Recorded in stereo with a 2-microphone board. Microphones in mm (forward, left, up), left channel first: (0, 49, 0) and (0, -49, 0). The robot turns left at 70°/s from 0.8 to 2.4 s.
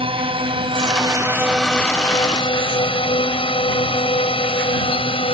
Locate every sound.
0.0 s a drone: 70° right (ahead or behind); by 5.3 s 70° left (ahead or behind)